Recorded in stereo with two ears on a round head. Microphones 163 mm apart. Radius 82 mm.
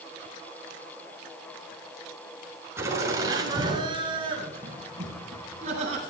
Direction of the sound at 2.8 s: 15° right (ahead or behind).